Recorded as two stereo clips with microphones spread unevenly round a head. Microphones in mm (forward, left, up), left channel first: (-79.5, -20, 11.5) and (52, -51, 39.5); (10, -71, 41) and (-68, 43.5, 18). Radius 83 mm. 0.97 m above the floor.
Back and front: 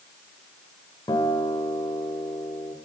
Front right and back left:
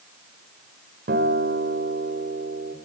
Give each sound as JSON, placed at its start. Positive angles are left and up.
{"t": 1.1, "sound": "a guitar", "azimuth_deg": 95, "distance_m": 2.0}